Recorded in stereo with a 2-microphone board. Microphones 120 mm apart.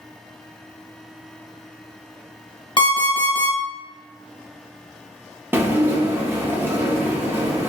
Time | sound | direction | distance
2.8 | an alarm clock | 45° left (ahead or behind) | 0.9 m
5.5 | dishes clattering | 20° right (ahead or behind) | 0.5 m